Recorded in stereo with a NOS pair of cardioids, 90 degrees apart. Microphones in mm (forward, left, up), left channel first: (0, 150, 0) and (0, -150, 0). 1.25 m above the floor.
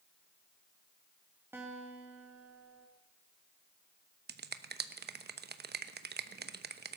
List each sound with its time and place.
1.5 s a guitar: 10° right, 3 m
4.3 s a finger snap: 35° right, 1.0 m